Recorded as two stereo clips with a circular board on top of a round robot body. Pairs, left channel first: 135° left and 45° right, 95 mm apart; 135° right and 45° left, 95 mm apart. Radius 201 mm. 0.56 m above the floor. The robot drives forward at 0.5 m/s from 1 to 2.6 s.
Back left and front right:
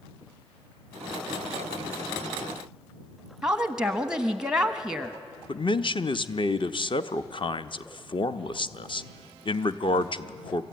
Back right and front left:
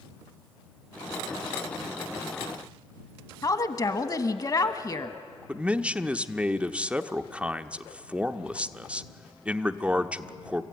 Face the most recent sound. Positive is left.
turn(degrees=120)